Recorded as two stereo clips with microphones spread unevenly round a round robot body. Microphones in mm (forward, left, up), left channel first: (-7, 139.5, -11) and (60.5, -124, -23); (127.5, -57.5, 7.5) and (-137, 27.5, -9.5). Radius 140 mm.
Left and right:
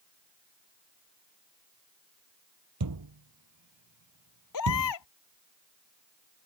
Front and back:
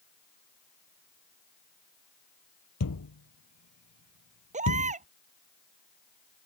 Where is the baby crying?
95° left.